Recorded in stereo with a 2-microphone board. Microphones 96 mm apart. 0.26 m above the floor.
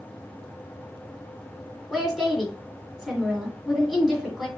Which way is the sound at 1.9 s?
Centre (ahead or behind).